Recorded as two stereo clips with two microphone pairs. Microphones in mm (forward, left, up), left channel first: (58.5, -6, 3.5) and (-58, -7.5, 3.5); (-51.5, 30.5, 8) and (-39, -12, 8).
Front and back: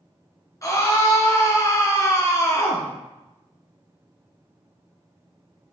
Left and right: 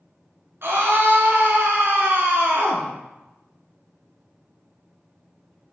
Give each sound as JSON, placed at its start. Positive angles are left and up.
{"t": 0.6, "sound": "a scream", "azimuth_deg": -60, "distance_m": 3.0}